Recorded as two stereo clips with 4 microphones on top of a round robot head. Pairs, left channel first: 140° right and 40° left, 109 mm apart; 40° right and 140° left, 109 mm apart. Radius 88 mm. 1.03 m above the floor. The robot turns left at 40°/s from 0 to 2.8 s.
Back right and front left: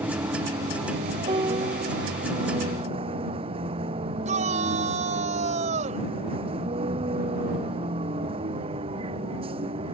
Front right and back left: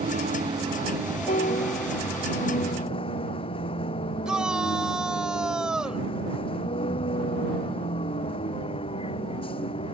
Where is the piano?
10° right; by 2.1 s 40° right.